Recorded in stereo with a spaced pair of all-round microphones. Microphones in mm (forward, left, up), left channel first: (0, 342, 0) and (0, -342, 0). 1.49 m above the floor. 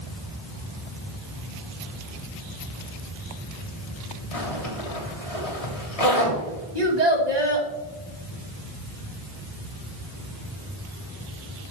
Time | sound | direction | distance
4.3 | a zipper | 60° left (ahead or behind) | 2.5 m
6.8 | a child speaking | 75° right (ahead or behind) | 2 m